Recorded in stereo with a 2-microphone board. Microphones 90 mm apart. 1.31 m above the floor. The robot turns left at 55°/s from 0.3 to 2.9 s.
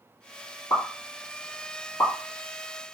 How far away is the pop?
About 1.5 m.